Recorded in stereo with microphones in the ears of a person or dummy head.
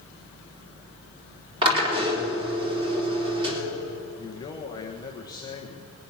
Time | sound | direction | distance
1.6 | a drill | 30° right (ahead or behind) | 3.5 m
4.2 | a man speaking | 20° left (ahead or behind) | 1.2 m